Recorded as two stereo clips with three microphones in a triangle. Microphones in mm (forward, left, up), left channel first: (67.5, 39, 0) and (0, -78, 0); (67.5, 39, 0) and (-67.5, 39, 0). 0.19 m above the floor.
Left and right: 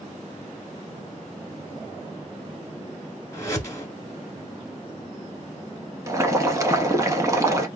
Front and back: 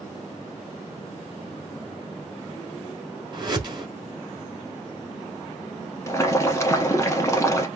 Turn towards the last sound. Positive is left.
turn(degrees=-60)